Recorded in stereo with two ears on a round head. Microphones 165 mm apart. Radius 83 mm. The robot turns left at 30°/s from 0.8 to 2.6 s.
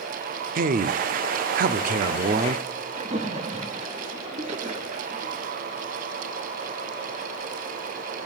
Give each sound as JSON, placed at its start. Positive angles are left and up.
{"t": 0.6, "sound": "a man speaking", "azimuth_deg": -75, "distance_m": 0.5}
{"t": 3.0, "sound": "a splash", "side_deg": -35, "distance_m": 1.0}